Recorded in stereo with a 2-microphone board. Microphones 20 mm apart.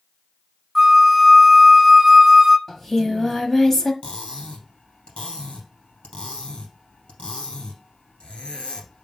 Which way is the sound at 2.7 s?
20° left (ahead or behind).